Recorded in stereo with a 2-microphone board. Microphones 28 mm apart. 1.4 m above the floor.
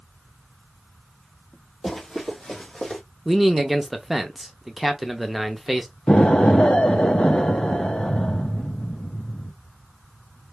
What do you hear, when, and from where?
1.8 s running footsteps: 10° left (ahead or behind), 2 m; by 3.0 s 35° left (ahead or behind), 3 m
3.2 s a man speaking: 10° right (ahead or behind), 0.7 m
6.1 s an explosion: 45° left (ahead or behind), 0.7 m